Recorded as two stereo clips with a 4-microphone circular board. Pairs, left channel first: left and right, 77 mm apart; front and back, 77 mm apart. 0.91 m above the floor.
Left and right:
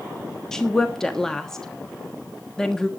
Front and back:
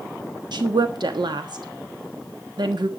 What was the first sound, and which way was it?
A woman speaking, 175° left.